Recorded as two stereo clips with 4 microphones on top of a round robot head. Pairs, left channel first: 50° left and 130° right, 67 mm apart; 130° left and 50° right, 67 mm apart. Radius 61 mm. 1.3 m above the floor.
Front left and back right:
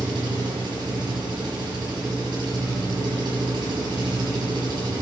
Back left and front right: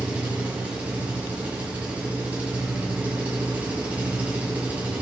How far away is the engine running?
About 7 m.